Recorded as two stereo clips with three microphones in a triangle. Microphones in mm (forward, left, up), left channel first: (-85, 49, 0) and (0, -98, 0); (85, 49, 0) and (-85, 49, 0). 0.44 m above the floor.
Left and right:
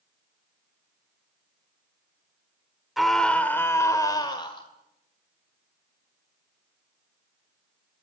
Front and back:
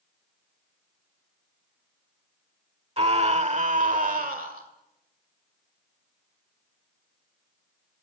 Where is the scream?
150° right, 1.3 m; by 4.7 s 175° left, 1.8 m.